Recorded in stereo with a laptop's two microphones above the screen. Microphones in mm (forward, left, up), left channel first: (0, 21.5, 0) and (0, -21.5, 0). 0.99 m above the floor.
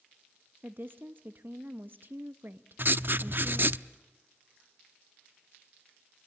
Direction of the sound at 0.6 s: 50° right (ahead or behind).